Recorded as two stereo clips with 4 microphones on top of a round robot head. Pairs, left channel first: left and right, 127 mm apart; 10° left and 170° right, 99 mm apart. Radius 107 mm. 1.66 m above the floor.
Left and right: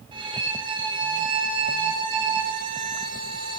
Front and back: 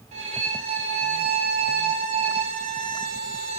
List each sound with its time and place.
0.1 s a violin: 150° right, 2.5 m